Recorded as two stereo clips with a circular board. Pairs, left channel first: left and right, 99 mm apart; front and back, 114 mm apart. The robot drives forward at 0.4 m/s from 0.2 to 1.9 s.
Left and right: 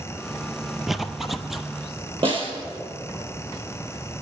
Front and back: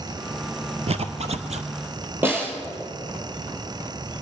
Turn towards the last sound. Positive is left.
turn(degrees=-110)